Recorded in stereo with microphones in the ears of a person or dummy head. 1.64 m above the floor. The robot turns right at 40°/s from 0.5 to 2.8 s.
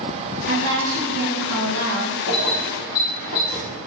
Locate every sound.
0.5 s a woman speaking: 130° right, 0.7 m; by 2.2 s 60° right, 0.7 m
2.3 s keys jangling: 65° left (ahead or behind), 1.1 m; by 3.6 s 60° left (ahead or behind), 1.1 m